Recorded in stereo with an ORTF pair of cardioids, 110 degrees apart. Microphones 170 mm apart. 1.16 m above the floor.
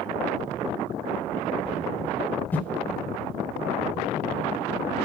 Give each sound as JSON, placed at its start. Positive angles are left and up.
{"t": 2.5, "sound": "a whoosh", "azimuth_deg": 10, "distance_m": 2.5}